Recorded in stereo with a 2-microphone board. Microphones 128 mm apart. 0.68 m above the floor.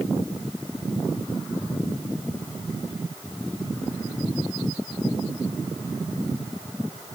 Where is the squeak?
No squeak in this recording.